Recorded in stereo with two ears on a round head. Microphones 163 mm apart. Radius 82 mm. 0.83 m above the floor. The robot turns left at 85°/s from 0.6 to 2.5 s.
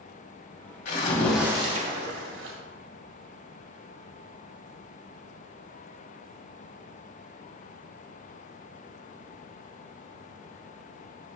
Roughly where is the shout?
I don't hear a shout.